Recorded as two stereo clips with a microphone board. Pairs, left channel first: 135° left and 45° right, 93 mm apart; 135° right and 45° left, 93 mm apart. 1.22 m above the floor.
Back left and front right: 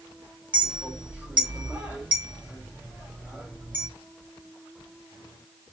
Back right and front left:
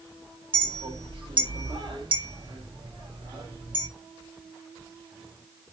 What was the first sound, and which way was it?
A clink, 30° left.